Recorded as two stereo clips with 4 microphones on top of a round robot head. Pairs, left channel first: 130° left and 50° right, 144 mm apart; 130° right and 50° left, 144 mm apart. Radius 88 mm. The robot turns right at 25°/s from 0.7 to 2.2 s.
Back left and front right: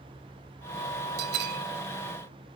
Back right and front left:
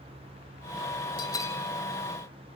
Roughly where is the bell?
Ahead right.